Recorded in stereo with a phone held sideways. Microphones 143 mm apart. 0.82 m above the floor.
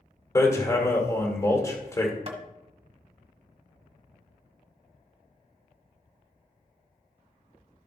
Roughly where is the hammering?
Left.